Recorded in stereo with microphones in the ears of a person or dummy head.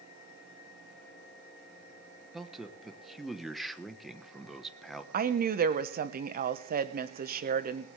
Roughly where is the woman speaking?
Right.